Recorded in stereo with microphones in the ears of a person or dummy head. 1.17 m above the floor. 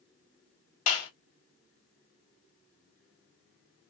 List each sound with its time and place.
0.9 s a clap: 45° left (ahead or behind), 1.8 m